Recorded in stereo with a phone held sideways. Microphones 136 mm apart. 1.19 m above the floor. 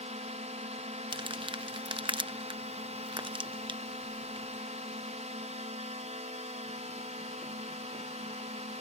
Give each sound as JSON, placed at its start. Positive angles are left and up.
{"t": 0.0, "sound": "a drone", "side_deg": -60}
{"t": 1.1, "sound": "crumpling", "side_deg": -40}